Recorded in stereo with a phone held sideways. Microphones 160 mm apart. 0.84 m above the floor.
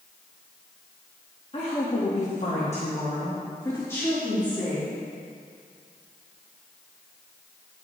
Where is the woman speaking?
40° left (ahead or behind), 1.5 m; by 4.9 s 5° left (ahead or behind), 2.5 m.